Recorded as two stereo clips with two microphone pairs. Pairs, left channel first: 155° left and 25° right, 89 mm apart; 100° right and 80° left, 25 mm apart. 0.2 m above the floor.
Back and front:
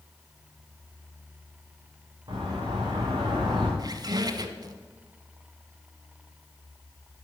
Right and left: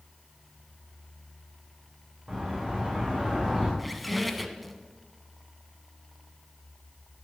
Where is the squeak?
10° right, 0.9 m.